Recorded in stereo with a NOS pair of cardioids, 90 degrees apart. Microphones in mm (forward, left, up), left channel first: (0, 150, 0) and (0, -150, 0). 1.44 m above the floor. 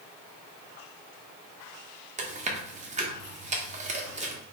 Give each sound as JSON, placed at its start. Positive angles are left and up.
{"t": 2.2, "sound": "chewing", "azimuth_deg": -25, "distance_m": 1.3}